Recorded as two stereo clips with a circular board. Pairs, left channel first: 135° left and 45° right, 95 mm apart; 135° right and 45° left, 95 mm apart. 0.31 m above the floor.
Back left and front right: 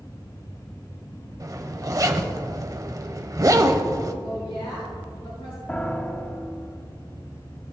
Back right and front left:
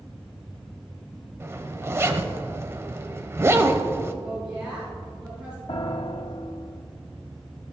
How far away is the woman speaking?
About 3 m.